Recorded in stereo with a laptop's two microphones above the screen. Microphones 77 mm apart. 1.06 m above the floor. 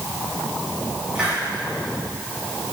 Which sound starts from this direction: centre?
A hiss, at 1.1 s.